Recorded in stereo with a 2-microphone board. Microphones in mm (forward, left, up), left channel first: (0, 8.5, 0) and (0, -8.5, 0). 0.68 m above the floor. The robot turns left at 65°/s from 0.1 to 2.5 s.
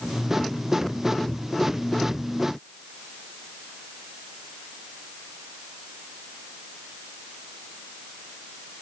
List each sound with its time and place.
Only background noise.